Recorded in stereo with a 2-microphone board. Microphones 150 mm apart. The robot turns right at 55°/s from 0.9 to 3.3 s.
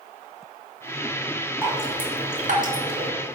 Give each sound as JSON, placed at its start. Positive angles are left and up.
{"t": 1.6, "sound": "dripping", "side_deg": -15, "distance_m": 1.0}